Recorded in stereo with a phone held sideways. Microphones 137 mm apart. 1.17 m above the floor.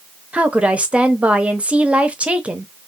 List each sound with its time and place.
0.3 s a woman speaking: 10° right (ahead or behind), 0.8 m